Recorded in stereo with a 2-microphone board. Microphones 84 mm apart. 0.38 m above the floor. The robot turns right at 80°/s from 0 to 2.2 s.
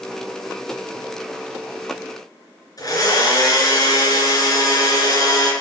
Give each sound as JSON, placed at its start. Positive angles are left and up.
{"t": 2.8, "sound": "a blender", "side_deg": 45, "distance_m": 3.0}